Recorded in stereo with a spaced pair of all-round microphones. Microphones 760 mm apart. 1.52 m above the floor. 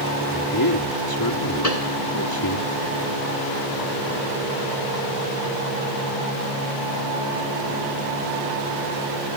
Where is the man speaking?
30° left (ahead or behind).